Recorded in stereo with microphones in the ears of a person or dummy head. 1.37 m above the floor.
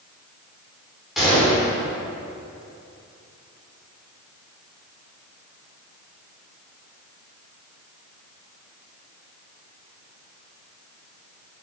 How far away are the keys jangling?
I don't hear keys jangling.